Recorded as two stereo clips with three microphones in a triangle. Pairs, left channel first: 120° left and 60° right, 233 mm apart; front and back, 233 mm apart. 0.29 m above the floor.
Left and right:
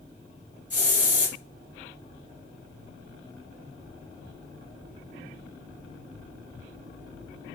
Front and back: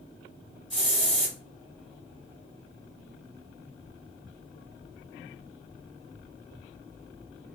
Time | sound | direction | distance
0.7 | a hiss | 135° left | 1.7 m